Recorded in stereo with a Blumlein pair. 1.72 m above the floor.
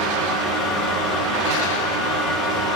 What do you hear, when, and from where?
0.0 s a fan: 35° left, 2.0 m